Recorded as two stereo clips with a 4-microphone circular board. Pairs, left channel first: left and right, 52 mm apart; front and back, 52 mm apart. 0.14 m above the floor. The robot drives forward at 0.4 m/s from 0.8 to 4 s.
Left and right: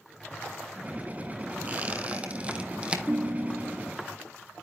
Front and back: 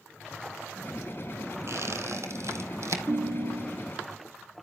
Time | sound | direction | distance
1.7 | a squeak | 150° right | 1.3 m
3.1 | a ringtone | 140° right | 0.9 m